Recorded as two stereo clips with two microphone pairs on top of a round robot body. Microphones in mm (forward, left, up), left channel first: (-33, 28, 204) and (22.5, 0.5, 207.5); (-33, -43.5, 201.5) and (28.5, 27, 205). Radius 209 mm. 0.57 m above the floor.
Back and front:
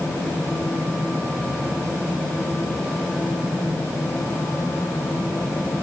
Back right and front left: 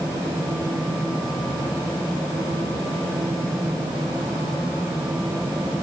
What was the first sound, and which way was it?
Only background noise.